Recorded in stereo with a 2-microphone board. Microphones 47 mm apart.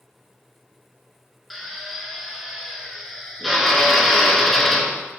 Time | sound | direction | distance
1.5 | a drill | centre (ahead or behind) | 0.6 m